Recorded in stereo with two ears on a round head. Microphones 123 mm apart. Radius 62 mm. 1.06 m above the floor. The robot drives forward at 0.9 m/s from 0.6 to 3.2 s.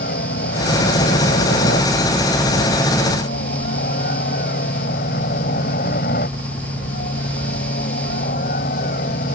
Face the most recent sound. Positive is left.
turn(degrees=70)  # may be behind; listen again after turning